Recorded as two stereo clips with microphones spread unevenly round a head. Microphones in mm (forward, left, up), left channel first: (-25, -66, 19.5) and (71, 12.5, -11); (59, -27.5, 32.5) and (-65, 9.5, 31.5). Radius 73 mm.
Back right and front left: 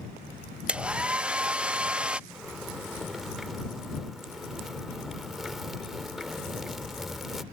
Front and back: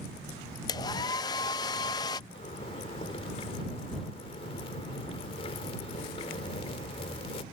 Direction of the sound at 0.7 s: 55° right.